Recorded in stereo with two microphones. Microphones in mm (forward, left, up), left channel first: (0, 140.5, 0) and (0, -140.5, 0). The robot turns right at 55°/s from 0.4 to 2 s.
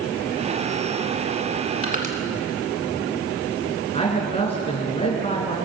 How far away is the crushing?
About 1.9 m.